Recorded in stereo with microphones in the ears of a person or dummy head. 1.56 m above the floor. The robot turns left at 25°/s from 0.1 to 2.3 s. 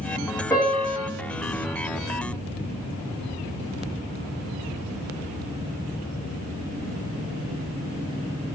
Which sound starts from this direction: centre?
A piano, at 0.5 s.